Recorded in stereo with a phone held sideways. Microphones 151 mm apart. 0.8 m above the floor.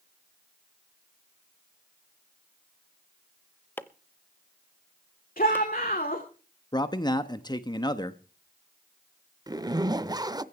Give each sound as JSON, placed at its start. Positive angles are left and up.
{"t": 3.8, "sound": "chopping", "side_deg": 15, "distance_m": 0.6}
{"t": 5.4, "sound": "a shout", "side_deg": 75, "distance_m": 2.5}
{"t": 6.7, "sound": "a man speaking", "side_deg": 30, "distance_m": 0.9}
{"t": 9.5, "sound": "a zipper", "side_deg": -25, "distance_m": 0.5}